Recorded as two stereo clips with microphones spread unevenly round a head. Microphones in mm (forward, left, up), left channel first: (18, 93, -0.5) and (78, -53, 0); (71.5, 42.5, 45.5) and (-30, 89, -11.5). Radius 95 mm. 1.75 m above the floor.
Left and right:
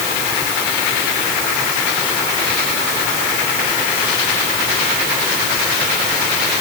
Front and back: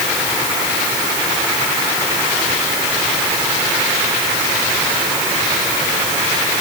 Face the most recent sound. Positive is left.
No sound to turn to.